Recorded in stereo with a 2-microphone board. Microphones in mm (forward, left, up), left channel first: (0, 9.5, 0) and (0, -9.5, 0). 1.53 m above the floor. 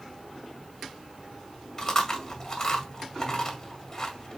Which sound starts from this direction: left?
Chewing, at 1.8 s.